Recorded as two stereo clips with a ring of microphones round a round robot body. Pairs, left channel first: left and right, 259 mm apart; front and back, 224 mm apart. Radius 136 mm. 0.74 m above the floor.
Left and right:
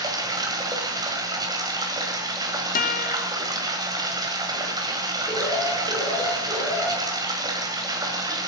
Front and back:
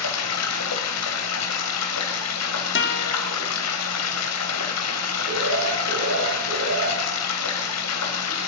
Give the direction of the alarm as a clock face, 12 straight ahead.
6 o'clock.